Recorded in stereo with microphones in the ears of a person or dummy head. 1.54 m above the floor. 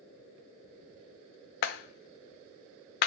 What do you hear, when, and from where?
1.6 s a clap: 60° left (ahead or behind), 0.8 m